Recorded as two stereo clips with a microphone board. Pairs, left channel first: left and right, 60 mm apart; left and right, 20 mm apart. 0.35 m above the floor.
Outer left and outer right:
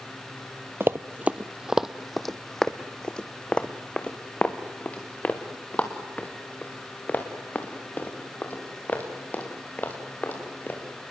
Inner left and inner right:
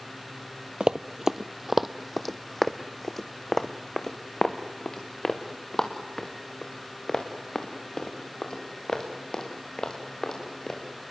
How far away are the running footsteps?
About 0.6 m.